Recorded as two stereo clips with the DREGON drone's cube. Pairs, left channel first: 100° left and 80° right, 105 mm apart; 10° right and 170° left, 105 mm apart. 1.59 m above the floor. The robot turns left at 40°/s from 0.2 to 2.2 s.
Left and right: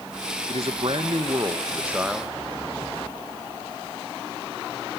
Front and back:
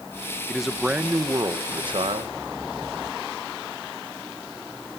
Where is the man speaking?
95° right, 1.5 m; by 2.4 s 165° right, 1.5 m.